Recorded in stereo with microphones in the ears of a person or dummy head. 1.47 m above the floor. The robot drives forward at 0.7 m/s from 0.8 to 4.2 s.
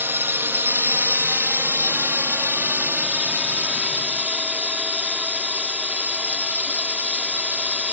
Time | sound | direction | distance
0.0 | a drone | 10° right (ahead or behind) | ?